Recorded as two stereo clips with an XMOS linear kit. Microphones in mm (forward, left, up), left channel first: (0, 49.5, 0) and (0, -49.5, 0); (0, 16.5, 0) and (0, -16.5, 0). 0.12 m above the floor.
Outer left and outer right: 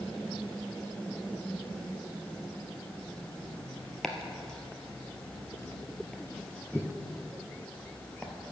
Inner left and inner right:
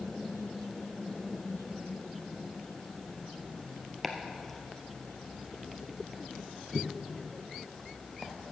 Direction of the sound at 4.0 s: 5° left (ahead or behind).